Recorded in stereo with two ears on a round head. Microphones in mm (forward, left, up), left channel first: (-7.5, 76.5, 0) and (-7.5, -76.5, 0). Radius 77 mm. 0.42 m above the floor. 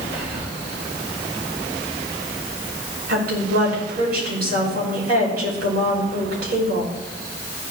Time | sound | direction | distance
0.1 | whispering | 65° right (ahead or behind) | 4.5 m
3.1 | a woman speaking | 60° right (ahead or behind) | 4.5 m